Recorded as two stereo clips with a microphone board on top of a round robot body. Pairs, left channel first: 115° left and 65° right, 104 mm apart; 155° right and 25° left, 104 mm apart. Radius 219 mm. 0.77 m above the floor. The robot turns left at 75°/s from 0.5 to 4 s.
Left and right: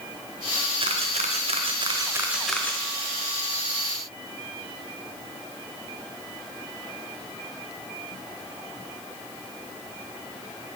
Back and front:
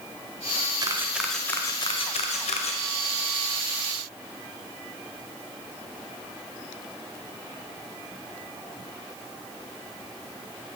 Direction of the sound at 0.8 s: 30° right.